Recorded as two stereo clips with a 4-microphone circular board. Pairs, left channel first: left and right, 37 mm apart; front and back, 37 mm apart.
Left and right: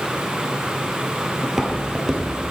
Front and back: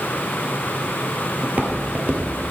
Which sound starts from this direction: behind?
Footsteps, at 1.4 s.